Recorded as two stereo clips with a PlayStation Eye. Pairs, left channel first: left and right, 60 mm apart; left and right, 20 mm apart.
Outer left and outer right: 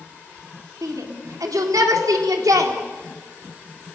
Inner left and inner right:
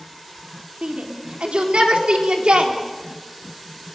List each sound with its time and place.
0.8 s a shout: 80° right, 4 m